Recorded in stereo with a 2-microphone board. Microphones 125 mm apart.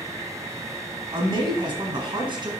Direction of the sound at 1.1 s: 40° right (ahead or behind).